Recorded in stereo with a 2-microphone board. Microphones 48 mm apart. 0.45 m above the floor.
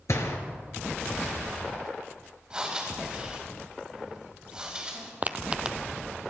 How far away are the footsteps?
About 0.6 m.